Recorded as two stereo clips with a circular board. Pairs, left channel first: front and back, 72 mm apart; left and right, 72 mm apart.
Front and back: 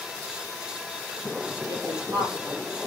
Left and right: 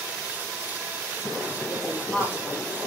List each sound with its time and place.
1.7 s a woman speaking: 145° left, 6 m